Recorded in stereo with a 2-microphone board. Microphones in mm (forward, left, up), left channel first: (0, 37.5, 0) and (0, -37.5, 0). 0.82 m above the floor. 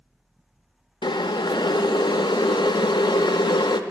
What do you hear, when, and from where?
1.0 s boiling: 80° left, 0.5 m